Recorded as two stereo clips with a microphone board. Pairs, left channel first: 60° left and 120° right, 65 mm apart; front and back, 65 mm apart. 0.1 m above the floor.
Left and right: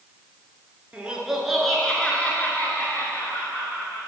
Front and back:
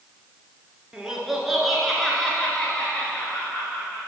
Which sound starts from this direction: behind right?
Laughter, at 0.9 s.